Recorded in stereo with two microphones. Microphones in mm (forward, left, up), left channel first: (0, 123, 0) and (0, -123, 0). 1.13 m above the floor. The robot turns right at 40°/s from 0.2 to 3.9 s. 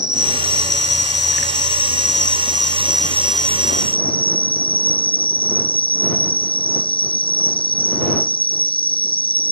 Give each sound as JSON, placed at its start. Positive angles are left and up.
{"t": 0.0, "sound": "an insect", "azimuth_deg": -125}